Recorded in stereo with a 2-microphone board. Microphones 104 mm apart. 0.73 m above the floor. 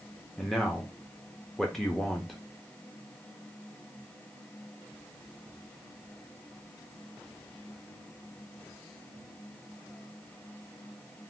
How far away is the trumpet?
No trumpet in this recording.